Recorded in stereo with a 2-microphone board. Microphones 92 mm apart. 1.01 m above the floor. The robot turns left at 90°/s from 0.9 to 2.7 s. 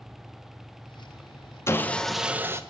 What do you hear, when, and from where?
1.7 s sawing: 40° left, 0.7 m; by 2.6 s 45° right, 0.7 m